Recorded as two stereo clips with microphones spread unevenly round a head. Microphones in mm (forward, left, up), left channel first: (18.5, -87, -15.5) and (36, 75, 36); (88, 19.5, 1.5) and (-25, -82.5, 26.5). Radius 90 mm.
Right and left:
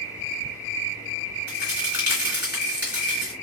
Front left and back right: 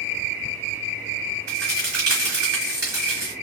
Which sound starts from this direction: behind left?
A crack, at 1.5 s.